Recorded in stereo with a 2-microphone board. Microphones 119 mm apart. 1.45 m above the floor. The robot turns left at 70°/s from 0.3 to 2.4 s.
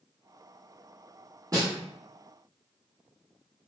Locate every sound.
1.5 s a snare drum: 30° right (ahead or behind), 1.5 m; by 1.7 s 45° right (ahead or behind), 1.5 m